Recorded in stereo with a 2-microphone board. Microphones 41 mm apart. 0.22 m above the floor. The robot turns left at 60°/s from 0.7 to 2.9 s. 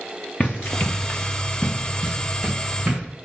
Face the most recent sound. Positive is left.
turn(degrees=-40)  # may be behind; listen again after turning